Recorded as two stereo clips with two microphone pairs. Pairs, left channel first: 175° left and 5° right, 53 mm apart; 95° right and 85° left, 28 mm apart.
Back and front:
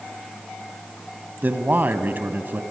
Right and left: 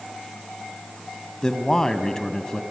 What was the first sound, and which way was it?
A man speaking, 40° right.